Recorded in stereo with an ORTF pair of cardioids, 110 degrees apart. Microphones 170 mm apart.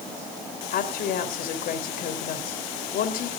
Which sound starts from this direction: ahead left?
A woman speaking, at 0.7 s.